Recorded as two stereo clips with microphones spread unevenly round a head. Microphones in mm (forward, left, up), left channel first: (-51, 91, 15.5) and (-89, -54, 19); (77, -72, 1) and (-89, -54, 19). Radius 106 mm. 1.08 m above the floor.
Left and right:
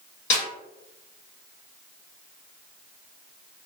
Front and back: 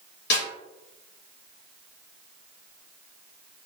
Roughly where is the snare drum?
Ahead left.